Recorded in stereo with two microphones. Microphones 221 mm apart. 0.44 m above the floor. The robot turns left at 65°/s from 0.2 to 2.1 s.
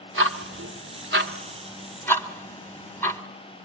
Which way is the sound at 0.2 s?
65° right (ahead or behind).